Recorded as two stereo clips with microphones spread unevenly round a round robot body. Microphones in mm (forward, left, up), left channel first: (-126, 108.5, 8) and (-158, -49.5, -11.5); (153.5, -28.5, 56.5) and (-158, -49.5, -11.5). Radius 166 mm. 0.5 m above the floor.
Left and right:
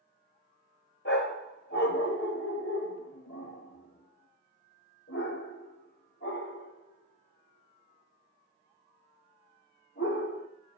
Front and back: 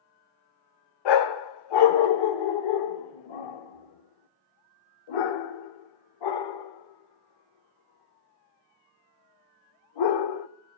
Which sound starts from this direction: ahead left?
A dog barking, at 1.1 s.